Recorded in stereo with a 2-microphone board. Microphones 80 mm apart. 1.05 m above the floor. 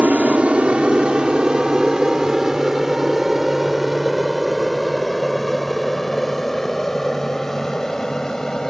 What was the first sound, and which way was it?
An aircraft, 15° right (ahead or behind).